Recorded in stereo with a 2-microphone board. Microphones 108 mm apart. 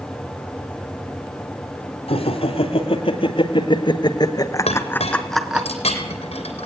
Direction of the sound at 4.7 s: 75° left (ahead or behind).